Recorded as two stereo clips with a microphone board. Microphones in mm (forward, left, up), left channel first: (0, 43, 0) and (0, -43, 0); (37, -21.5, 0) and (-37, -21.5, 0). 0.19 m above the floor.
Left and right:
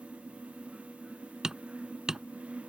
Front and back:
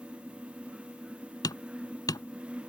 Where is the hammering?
10° right.